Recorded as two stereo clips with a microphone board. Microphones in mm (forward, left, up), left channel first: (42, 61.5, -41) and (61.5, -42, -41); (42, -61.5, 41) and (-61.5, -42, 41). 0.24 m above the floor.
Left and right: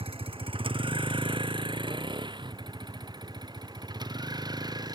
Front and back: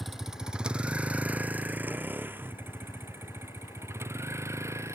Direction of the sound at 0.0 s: 100° right.